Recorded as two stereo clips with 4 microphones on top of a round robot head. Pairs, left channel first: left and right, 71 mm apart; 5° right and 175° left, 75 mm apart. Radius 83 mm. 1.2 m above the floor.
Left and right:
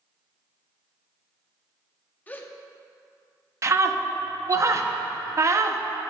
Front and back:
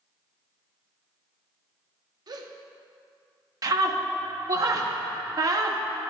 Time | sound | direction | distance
2.3 | a gasp | 155° left | 0.7 m
3.6 | a scream | 135° right | 0.7 m